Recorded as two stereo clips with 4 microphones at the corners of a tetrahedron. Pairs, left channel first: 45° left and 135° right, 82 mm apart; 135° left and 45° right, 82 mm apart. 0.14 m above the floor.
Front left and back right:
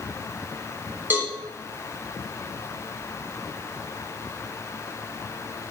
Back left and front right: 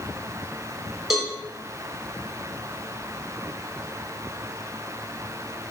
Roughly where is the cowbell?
Behind right.